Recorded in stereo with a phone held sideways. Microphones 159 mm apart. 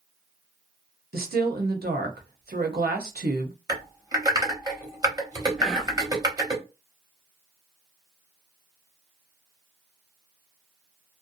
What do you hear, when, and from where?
1.1 s a woman speaking: 80° right, 0.8 m
3.7 s typing on a keyboard: 25° right (ahead or behind), 0.9 m
5.6 s whispering: centre (ahead or behind), 1.0 m